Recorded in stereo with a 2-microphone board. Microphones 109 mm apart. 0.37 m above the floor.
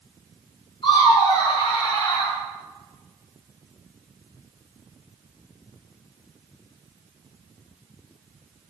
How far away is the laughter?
About 2.5 m.